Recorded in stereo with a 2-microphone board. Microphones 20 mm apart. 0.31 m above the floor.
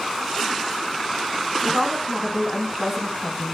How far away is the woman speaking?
About 2.5 m.